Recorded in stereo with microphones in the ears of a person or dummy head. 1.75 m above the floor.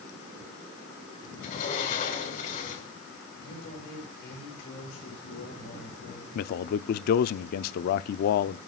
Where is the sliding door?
45° left (ahead or behind), 5 m.